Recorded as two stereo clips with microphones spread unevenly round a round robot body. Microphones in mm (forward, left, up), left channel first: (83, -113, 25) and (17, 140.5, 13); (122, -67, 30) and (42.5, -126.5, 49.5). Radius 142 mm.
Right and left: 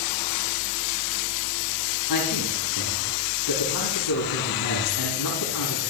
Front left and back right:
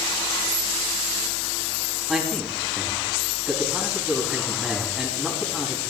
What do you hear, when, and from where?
2.1 s a man speaking: 55° right, 4.5 m